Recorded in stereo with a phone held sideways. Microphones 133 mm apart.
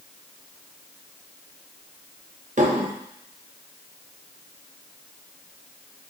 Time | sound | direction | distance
2.6 | dishes clattering | 65° right (ahead or behind) | 0.8 m